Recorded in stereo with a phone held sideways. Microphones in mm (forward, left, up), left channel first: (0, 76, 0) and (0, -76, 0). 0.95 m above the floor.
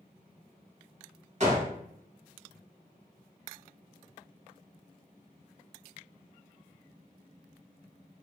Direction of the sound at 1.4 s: 50° right (ahead or behind).